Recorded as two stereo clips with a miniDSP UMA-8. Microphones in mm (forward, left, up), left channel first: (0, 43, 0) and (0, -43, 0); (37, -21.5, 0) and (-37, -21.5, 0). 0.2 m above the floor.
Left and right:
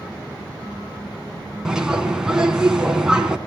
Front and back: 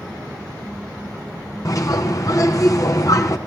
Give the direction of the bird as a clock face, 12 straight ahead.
12 o'clock.